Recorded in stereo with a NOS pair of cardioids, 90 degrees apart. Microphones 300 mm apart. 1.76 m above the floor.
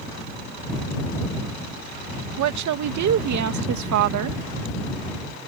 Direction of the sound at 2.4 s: 70° right.